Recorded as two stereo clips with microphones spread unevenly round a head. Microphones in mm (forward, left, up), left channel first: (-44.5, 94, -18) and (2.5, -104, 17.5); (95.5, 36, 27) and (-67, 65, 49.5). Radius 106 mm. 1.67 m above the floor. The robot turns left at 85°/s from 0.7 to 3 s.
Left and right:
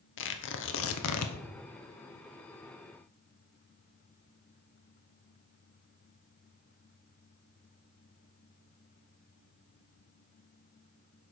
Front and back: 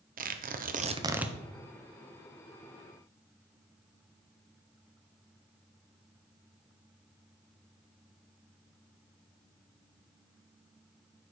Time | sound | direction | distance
0.2 | tearing paper | 130° left | 1.1 m